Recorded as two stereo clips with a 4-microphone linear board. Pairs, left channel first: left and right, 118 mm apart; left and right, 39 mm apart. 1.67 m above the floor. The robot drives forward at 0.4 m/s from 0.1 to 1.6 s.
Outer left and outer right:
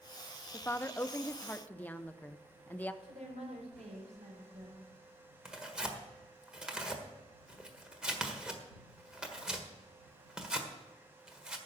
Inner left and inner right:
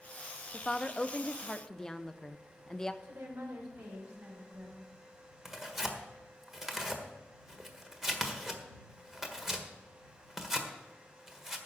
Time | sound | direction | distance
0.5 | a woman speaking | 20° left (ahead or behind) | 0.5 m
3.0 | a woman speaking | 80° right | 5 m
5.5 | tearing paper | 5° right (ahead or behind) | 1.5 m